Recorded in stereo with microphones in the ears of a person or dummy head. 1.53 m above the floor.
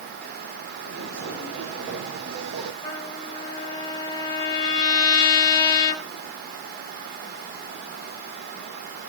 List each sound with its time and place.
0.8 s footsteps: 65° right (ahead or behind), 4.5 m; by 2.7 s 50° right (ahead or behind), 3 m
2.8 s a trumpet: 25° left (ahead or behind), 2.5 m